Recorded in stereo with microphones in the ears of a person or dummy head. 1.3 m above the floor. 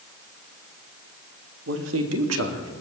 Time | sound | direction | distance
1.7 | a man speaking | 70° right (ahead or behind) | 3 m